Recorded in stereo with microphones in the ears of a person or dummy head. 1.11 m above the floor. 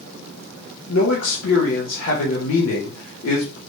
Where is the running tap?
I don't hear a running tap.